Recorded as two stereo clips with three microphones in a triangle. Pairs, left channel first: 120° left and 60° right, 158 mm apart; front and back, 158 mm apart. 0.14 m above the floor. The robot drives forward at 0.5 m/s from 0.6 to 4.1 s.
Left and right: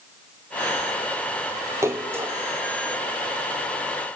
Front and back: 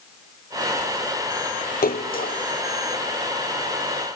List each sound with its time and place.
1.8 s a splash: 15° left, 1.6 m